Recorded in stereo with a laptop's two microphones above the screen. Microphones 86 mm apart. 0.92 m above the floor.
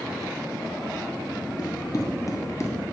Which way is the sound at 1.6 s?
50° left (ahead or behind).